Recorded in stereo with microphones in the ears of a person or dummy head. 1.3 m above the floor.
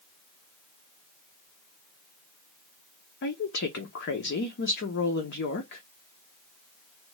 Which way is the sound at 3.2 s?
60° left (ahead or behind).